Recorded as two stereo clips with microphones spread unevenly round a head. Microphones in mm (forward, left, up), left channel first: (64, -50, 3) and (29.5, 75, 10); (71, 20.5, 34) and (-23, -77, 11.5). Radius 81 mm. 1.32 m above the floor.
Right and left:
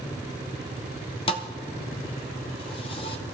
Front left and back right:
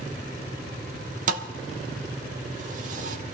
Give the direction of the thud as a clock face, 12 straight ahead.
4 o'clock.